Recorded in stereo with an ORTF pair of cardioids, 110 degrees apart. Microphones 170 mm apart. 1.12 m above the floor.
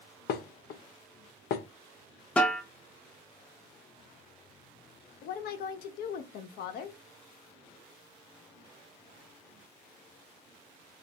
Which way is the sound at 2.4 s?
10° left.